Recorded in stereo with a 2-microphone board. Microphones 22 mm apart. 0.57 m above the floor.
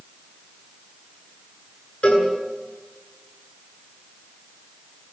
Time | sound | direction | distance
2.0 | a cowbell | 80° left | 9 m